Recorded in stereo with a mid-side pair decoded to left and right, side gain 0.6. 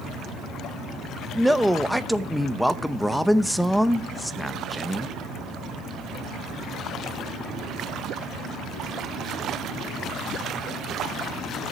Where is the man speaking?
Straight ahead, 0.9 m.